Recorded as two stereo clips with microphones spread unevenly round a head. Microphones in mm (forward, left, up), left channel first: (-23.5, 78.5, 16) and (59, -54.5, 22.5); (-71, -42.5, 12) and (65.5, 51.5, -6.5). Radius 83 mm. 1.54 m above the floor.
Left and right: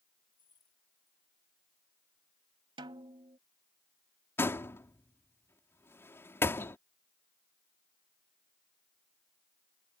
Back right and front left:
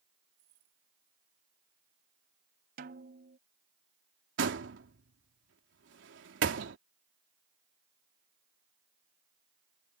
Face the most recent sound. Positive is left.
turn(degrees=45)